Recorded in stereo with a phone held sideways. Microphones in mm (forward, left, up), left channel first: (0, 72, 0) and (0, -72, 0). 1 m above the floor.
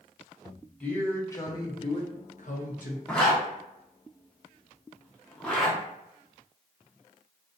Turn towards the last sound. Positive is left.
turn(degrees=5)  # may be behind; listen again after turning